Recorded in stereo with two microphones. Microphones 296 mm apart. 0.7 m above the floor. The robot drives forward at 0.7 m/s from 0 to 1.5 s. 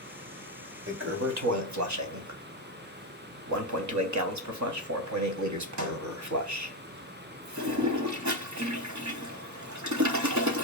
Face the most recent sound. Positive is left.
turn(degrees=-70)  # may be behind; listen again after turning